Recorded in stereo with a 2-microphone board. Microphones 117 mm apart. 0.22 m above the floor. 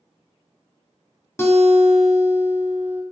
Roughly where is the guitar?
Left.